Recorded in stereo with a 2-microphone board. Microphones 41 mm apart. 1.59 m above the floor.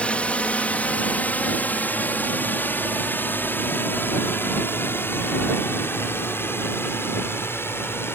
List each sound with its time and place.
0.0 s a drone: 30° left (ahead or behind); by 8.2 s 75° left (ahead or behind)